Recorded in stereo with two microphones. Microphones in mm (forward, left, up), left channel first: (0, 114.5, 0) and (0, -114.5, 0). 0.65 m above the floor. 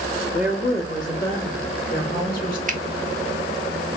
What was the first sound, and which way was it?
A woman speaking, 35° left (ahead or behind).